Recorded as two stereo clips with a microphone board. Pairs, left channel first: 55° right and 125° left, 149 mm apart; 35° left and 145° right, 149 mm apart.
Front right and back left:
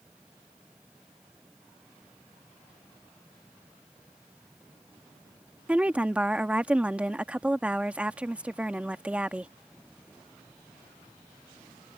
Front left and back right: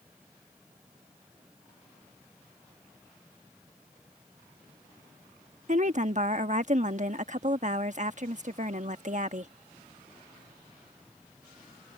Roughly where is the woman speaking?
Behind right.